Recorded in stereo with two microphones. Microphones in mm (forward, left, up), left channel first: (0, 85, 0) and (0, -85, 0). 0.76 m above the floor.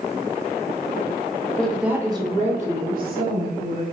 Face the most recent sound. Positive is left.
turn(degrees=-70)  # may be behind; listen again after turning